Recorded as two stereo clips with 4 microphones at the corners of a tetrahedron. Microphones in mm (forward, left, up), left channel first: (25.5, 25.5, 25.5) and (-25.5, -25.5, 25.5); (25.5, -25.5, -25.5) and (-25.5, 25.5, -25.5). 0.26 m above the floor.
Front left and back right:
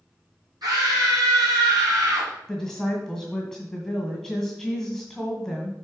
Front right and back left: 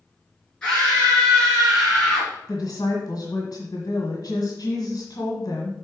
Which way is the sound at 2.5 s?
50° right.